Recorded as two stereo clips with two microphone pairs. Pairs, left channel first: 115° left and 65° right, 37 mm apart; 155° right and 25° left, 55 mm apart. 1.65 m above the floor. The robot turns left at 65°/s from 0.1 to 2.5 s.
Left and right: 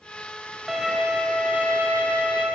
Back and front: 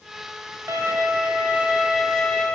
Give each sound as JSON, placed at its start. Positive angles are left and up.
{"t": 0.7, "sound": "a violin", "azimuth_deg": 20, "distance_m": 1.8}